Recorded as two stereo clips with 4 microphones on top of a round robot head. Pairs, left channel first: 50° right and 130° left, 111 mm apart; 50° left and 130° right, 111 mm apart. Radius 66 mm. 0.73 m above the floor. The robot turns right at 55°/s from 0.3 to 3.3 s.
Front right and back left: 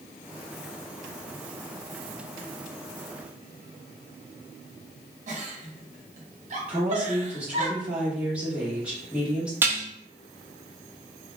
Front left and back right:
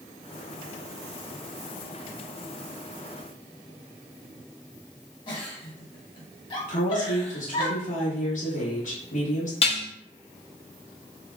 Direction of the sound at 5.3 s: 100° left.